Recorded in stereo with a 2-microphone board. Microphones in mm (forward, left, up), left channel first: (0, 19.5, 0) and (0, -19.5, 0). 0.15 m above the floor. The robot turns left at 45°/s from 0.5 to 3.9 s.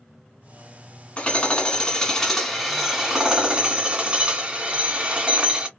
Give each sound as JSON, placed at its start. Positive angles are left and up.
{"t": 1.2, "sound": "hammering", "azimuth_deg": 70, "distance_m": 1.5}